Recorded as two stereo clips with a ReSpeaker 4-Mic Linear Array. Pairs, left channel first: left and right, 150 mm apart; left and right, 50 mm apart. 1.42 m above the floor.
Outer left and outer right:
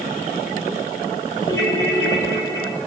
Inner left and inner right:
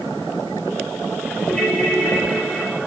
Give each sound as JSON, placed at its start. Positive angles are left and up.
{"t": 1.5, "sound": "a ringtone", "side_deg": 20, "distance_m": 5.5}